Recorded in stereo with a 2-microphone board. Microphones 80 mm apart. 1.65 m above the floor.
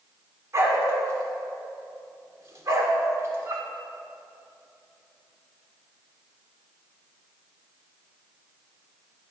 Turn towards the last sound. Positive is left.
turn(degrees=-40)  # may be behind; listen again after turning